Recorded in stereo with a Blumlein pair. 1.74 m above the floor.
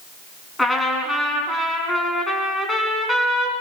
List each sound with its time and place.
0.6 s a trumpet: 5° left, 4.5 m